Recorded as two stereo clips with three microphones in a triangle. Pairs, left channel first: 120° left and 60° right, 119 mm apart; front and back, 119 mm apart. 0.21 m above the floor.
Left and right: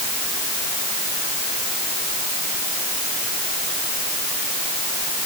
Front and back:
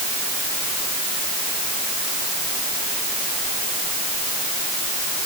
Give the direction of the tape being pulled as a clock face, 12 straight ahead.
No tape being pulled in this recording.